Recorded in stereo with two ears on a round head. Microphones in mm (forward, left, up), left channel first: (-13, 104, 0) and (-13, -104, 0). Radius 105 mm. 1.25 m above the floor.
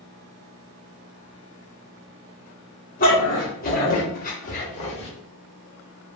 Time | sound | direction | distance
3.0 | a dog barking | 40° left (ahead or behind) | 1.1 m